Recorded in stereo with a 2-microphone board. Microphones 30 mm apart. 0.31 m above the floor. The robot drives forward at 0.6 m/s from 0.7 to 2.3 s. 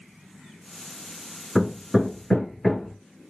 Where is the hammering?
5° left (ahead or behind), 0.8 m.